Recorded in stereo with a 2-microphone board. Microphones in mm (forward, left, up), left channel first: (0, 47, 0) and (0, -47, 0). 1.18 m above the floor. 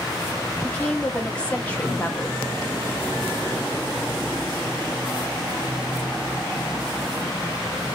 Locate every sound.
0.6 s a woman speaking: 15° left (ahead or behind), 1.5 m